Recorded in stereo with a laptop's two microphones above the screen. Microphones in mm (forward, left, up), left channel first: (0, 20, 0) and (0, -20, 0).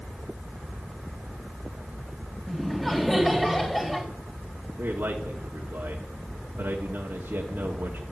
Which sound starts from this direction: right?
A man speaking, at 4.8 s.